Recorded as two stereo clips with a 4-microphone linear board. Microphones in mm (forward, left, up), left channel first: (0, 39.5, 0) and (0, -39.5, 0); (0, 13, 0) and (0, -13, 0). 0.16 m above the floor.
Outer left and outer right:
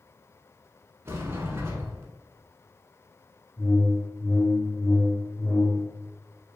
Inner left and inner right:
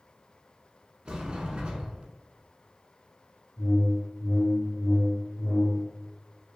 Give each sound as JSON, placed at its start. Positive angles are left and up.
{"t": 1.1, "sound": "a sliding door", "side_deg": -30, "distance_m": 0.9}
{"t": 3.6, "sound": "a whoosh", "side_deg": 10, "distance_m": 1.5}